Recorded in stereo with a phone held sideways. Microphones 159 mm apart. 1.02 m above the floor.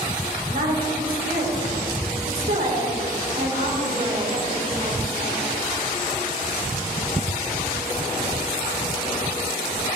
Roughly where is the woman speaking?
Right.